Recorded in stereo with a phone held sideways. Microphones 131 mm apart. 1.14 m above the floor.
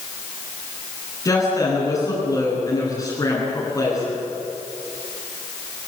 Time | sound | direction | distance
1.2 | a woman speaking | 25° left (ahead or behind) | 10 m